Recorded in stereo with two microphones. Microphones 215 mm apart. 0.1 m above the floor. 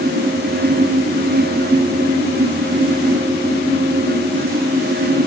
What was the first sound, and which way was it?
Only background noise.